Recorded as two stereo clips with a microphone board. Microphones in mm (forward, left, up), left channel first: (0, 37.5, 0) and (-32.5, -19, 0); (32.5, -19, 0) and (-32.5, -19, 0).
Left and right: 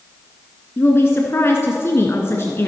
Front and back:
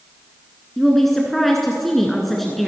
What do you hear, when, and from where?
0.8 s a woman speaking: 85° left, 1.4 m